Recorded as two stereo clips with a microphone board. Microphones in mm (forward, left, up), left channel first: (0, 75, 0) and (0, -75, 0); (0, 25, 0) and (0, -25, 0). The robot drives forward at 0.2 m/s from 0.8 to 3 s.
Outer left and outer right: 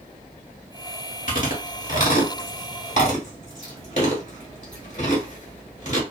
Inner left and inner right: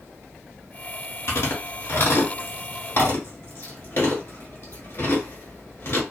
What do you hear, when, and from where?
1.3 s chewing: 65° left (ahead or behind), 1.4 m; by 6.0 s 55° left (ahead or behind), 1.6 m